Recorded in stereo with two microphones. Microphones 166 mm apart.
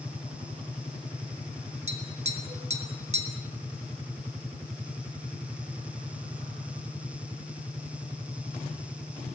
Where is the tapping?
40° right (ahead or behind), 3 m.